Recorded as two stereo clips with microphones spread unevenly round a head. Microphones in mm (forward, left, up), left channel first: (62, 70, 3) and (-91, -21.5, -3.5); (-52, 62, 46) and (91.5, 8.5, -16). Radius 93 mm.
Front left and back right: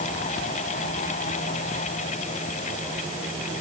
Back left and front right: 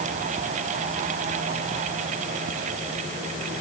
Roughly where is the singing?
I don't hear singing.